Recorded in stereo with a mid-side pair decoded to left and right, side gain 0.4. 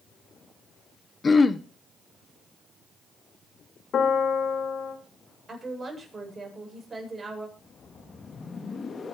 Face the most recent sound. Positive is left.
turn(degrees=45)